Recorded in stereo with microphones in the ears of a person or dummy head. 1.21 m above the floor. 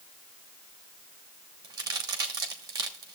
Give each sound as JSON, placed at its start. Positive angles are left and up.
{"t": 1.6, "sound": "a crack", "side_deg": -20, "distance_m": 1.2}